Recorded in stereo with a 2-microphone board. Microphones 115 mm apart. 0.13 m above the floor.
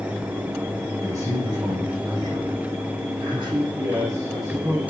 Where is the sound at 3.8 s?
30° right (ahead or behind), 7 m.